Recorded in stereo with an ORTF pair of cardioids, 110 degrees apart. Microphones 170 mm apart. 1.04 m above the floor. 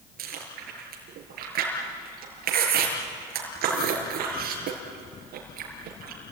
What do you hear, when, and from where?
0.2 s chewing: 65° right, 6 m